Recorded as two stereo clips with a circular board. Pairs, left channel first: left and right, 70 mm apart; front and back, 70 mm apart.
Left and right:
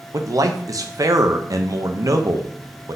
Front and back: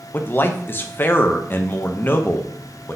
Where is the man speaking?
60° right, 0.5 m.